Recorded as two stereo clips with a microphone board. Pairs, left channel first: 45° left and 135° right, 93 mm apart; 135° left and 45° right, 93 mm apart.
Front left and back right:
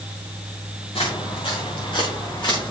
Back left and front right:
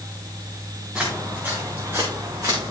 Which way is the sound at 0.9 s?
35° left.